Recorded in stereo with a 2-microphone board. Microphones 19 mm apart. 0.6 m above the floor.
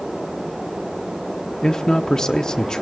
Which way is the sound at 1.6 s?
35° left (ahead or behind).